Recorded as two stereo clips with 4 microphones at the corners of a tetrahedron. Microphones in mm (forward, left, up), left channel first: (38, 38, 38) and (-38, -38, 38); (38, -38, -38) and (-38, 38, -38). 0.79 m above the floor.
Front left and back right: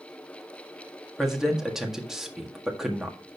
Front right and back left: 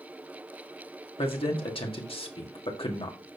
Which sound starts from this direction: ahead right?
A man speaking, at 1.2 s.